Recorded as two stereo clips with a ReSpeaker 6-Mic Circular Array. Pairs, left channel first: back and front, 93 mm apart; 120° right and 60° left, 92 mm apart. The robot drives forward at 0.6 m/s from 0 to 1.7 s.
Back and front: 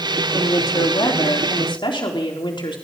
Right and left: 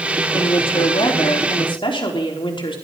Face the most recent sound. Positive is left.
turn(degrees=-150)